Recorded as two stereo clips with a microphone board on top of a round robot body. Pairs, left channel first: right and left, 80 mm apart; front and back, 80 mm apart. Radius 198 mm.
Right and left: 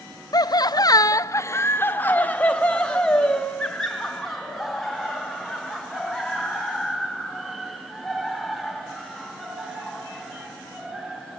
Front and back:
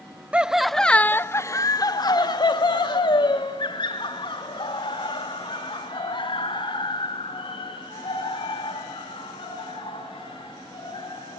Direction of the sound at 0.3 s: 110° right.